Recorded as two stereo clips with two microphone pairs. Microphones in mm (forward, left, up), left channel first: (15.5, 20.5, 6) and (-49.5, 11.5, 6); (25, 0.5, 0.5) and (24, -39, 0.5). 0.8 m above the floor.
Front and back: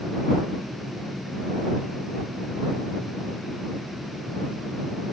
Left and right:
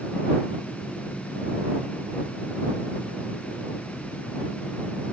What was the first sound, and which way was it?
Only background noise.